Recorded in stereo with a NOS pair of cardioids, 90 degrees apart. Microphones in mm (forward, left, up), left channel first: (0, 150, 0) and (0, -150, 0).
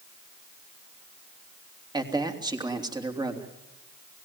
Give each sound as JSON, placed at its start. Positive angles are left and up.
{"t": 1.9, "sound": "a man speaking", "azimuth_deg": -15, "distance_m": 3.0}